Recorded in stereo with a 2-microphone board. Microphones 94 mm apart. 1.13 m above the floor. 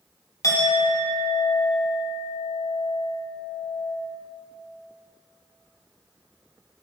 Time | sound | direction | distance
0.4 | a clink | 40° left (ahead or behind) | 1.2 m